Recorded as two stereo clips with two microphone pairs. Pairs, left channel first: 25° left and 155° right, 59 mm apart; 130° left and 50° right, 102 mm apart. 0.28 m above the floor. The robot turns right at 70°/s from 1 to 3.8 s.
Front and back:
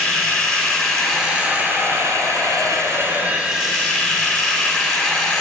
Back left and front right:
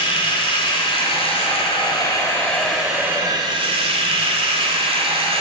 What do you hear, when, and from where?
0.0 s running water: 100° left, 3.5 m; by 5.4 s 65° right, 3.5 m